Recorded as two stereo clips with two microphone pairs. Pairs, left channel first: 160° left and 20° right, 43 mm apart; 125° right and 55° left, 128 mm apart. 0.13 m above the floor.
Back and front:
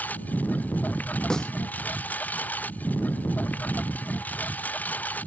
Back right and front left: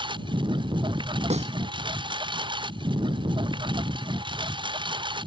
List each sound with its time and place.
0.0 s a lawn mower: 105° left
1.3 s a snare drum: 85° left